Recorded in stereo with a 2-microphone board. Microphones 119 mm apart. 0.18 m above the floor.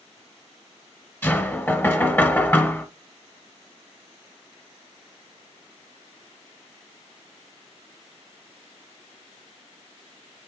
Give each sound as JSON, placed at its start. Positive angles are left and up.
{"t": 1.2, "sound": "knocking", "side_deg": 15, "distance_m": 1.2}